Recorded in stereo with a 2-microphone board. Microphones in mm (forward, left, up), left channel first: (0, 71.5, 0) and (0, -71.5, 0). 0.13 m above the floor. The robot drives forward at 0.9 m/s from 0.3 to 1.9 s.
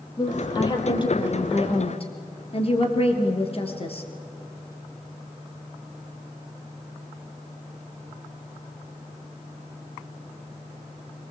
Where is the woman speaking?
30° left (ahead or behind), 4 m; by 4.0 s 40° left (ahead or behind), 3 m.